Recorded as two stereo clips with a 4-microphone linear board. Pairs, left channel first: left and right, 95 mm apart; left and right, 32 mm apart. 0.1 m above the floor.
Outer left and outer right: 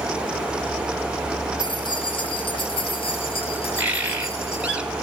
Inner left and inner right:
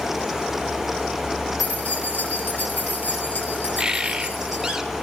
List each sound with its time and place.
1.6 s keys jangling: 50° left (ahead or behind), 3 m; by 4.8 s 80° left, 3.5 m
3.8 s a bird: 15° right (ahead or behind), 1.7 m